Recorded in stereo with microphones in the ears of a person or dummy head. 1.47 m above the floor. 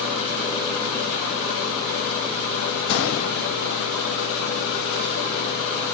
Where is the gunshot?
80° left, 1.6 m.